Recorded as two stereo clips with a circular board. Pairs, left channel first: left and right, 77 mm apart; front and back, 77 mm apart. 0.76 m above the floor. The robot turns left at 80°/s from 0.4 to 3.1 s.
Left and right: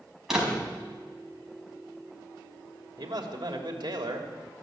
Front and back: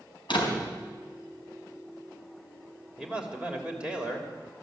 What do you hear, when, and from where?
0.3 s a door slam: 5° right, 4 m; by 0.7 s 30° right, 4 m
3.0 s a man speaking: 95° right, 3 m; by 4.3 s 105° right, 3 m